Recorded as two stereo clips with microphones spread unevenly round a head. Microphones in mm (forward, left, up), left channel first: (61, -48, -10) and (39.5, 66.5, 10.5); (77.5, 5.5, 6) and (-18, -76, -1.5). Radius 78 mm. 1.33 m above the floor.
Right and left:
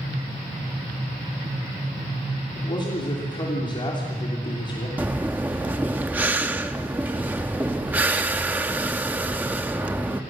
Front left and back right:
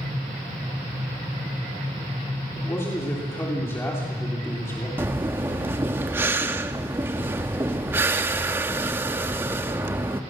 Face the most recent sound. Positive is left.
turn(degrees=150)